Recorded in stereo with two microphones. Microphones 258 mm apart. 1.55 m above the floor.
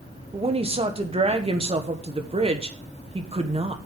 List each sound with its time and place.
0.3 s a woman speaking: 20° right (ahead or behind), 1.3 m